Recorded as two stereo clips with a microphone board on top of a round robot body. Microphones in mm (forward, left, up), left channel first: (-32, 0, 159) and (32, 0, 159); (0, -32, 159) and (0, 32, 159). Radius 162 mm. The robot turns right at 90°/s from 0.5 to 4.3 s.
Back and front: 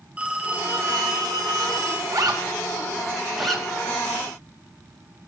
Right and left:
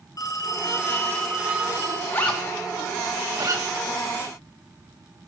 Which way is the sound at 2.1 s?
35° right.